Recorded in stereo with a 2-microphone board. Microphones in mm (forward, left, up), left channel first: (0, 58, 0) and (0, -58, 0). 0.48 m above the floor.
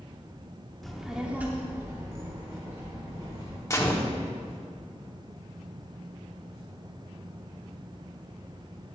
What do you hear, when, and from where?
0.8 s a child speaking: centre (ahead or behind), 0.7 m; by 3.6 s 30° right (ahead or behind), 1.6 m
3.7 s a gunshot: 25° left (ahead or behind), 0.8 m